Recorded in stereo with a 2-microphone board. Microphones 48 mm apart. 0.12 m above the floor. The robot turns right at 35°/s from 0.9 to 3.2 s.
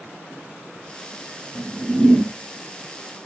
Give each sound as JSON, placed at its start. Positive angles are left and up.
{"t": 1.6, "sound": "a whoosh", "side_deg": -35, "distance_m": 1.2}